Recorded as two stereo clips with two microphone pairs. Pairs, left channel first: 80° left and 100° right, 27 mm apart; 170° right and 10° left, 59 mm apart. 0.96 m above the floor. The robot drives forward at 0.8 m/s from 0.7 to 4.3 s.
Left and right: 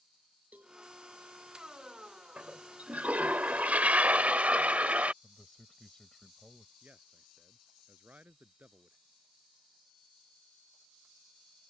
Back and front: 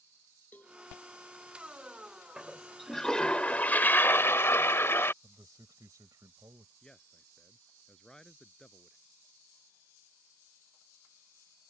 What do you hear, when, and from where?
0.5 s a cowbell: 110° right
2.4 s a toilet flushing: 70° right; by 5.1 s 125° right
5.2 s a man speaking: 15° left
6.8 s a man speaking: 90° right